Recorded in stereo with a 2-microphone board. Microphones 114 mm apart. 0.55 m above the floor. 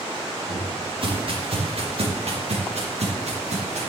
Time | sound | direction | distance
0.5 | footsteps | 45° right (ahead or behind) | 4 m